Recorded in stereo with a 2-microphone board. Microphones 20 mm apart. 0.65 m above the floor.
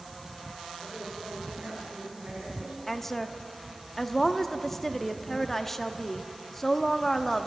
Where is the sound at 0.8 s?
85° right, 8 m.